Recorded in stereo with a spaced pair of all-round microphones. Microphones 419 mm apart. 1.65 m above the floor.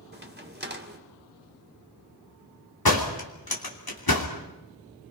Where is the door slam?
60° left (ahead or behind), 3 m.